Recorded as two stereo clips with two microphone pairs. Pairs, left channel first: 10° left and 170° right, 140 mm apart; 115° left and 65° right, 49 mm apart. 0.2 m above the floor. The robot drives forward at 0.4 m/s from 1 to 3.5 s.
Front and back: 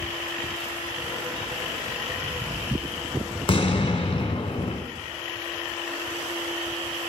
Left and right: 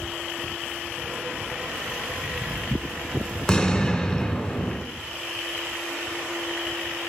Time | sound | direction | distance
3.5 | an explosion | 50° left | 1.1 m